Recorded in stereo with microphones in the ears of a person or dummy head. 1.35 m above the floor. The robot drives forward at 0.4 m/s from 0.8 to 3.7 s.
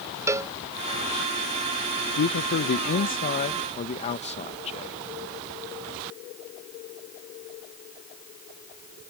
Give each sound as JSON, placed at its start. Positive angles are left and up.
{"t": 0.3, "sound": "a cowbell", "side_deg": -10}
{"t": 2.2, "sound": "a man speaking", "side_deg": 60}